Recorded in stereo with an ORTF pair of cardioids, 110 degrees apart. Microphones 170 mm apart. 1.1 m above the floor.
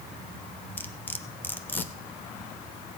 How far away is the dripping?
No dripping in this recording.